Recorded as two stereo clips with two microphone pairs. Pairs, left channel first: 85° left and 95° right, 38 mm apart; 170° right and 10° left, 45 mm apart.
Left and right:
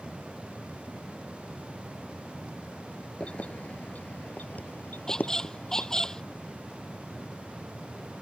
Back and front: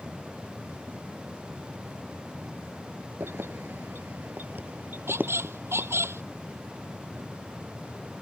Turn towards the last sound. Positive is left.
turn(degrees=15)